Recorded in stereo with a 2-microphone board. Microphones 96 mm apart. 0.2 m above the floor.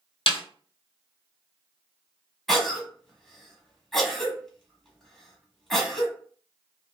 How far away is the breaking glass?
No breaking glass in this recording.